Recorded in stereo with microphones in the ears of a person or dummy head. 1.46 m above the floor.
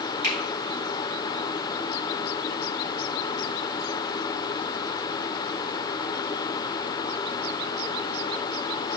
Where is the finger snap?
60° right (ahead or behind), 1.8 m.